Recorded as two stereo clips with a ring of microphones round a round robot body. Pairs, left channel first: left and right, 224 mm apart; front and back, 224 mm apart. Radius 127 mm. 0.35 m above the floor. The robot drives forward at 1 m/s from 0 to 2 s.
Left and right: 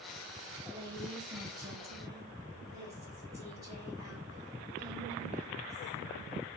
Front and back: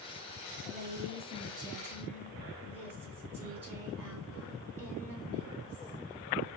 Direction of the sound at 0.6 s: 145° right.